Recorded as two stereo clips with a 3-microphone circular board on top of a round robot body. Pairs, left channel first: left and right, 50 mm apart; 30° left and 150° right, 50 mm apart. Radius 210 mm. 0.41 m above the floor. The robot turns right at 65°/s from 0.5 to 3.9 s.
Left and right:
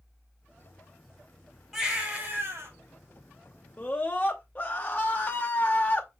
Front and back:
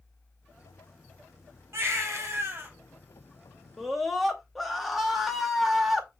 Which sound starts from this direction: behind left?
A scream, at 3.8 s.